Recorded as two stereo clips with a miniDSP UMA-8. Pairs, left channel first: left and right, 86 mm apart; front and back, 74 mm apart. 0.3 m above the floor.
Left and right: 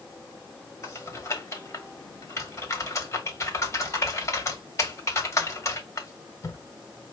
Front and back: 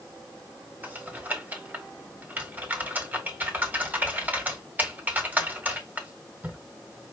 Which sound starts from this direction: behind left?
Typing on a keyboard, at 0.8 s.